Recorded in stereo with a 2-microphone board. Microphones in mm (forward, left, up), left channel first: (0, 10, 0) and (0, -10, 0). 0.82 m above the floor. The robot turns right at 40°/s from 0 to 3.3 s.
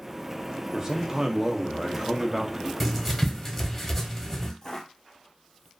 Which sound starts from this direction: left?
Footsteps, at 4.6 s.